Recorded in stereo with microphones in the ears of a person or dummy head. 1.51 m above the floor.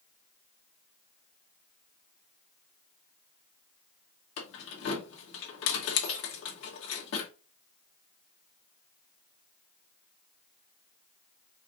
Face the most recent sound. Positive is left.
turn(degrees=75)  # may be behind; listen again after turning